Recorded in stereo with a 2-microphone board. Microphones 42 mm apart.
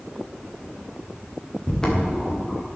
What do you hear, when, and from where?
1.6 s footsteps: 15° left (ahead or behind), 3 m